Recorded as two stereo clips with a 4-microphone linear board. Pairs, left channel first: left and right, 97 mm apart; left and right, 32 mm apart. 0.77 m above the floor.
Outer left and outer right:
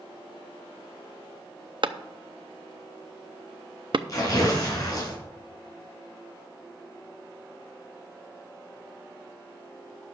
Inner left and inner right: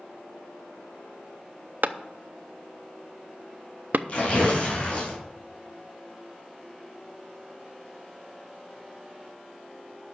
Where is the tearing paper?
40° left (ahead or behind), 5.5 m.